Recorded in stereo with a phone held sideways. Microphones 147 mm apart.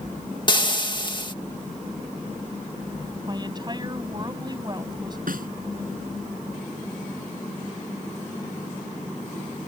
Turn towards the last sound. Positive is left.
turn(degrees=-80)